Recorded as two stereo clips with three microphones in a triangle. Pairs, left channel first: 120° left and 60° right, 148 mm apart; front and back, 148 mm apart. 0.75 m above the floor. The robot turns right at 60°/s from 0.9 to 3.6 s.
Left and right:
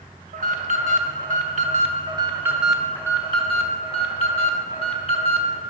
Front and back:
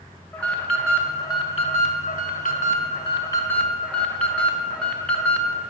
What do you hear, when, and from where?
0.3 s an alarm: 80° right, 0.5 m; by 5.6 s 80° left, 0.5 m